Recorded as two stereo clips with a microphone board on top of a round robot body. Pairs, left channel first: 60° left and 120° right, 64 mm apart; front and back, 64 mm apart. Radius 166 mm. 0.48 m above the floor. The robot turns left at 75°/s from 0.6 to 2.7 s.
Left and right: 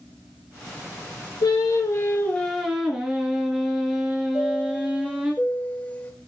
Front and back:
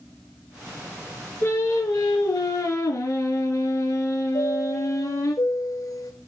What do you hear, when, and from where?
1.4 s singing: 60° left, 2 m; by 5.3 s 40° right, 2 m
4.3 s a chime: 5° right, 3 m